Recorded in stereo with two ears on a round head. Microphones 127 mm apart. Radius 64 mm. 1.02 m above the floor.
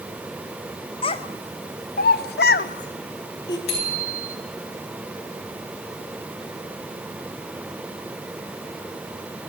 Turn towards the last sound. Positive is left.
turn(degrees=75)  # may be behind; listen again after turning